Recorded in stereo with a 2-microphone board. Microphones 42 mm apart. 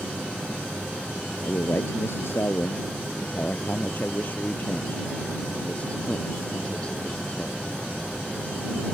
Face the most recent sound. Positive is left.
turn(degrees=25)  # may be behind; listen again after turning